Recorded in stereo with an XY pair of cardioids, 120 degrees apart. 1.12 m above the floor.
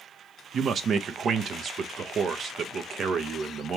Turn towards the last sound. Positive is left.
turn(degrees=-45)